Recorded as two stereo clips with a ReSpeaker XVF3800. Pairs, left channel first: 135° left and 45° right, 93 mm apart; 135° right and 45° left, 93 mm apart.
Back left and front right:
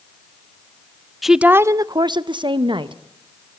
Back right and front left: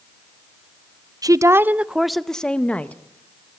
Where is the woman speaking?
45° left, 0.5 m; by 3.0 s 60° right, 1.2 m.